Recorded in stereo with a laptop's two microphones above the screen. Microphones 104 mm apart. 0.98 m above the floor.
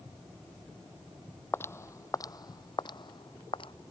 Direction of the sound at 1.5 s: 20° left (ahead or behind).